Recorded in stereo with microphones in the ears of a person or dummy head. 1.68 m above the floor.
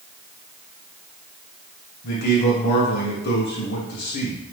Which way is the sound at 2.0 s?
55° left (ahead or behind).